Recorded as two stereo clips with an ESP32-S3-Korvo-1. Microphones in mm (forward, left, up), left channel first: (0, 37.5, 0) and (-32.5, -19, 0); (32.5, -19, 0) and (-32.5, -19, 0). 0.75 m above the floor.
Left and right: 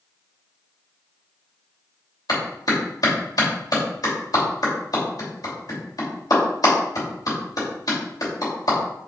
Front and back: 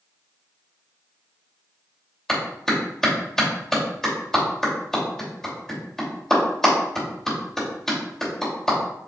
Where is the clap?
80° left, 3 m.